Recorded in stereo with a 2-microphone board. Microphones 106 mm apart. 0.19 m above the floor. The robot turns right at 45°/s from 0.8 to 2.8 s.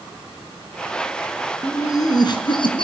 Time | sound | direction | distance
1.6 | laughter | 30° left | 3 m